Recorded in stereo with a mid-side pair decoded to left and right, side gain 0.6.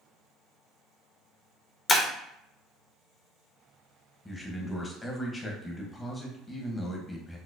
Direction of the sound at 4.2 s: 20° left.